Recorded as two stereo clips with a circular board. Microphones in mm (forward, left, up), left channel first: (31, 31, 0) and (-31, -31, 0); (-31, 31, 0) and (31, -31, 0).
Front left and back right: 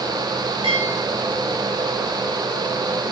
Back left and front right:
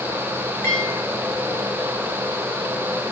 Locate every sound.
0.6 s a bell: 160° right, 9 m